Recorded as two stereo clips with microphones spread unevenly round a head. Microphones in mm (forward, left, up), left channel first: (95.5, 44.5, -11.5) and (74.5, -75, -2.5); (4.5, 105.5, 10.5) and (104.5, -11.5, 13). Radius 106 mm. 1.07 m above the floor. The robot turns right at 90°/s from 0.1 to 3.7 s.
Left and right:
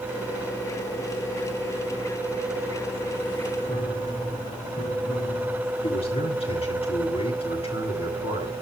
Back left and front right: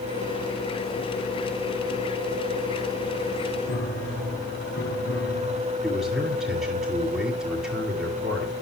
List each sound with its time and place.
3.7 s a piano: 145° left, 5 m; by 5.7 s 150° left, 5 m
5.8 s a man speaking: 40° left, 9 m